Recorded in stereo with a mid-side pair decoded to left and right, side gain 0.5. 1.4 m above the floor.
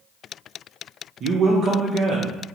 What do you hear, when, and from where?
1.2 s a man speaking: 55° right, 0.6 m